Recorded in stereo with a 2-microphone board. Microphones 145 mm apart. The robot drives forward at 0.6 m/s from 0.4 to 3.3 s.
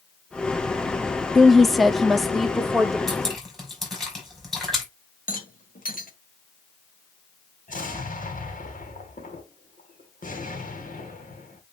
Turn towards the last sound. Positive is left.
turn(degrees=70)  # may be behind; listen again after turning